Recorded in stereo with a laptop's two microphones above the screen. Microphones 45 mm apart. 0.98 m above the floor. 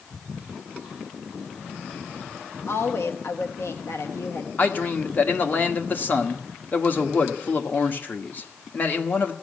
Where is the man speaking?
45° left (ahead or behind), 1.4 m.